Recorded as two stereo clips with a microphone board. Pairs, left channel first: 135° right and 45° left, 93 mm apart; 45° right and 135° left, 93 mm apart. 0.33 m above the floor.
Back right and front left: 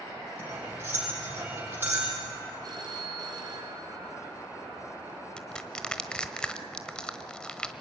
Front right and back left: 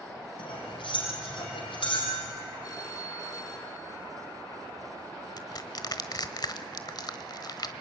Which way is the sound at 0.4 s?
25° right.